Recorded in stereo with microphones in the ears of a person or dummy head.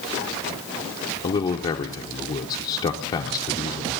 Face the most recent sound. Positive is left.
turn(degrees=20)  # may be behind; listen again after turning